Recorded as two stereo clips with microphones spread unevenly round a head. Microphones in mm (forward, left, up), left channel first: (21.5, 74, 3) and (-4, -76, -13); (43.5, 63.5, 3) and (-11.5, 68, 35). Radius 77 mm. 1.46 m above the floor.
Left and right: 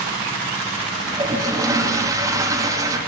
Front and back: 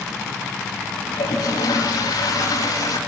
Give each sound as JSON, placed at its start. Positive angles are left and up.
{"t": 1.1, "sound": "a toilet flushing", "azimuth_deg": -30, "distance_m": 2.5}